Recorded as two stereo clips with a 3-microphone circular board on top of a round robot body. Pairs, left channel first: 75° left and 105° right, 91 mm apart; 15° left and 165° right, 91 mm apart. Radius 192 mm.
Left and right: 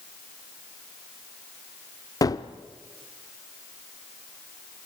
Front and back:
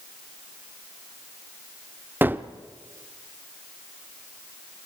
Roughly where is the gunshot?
Behind left.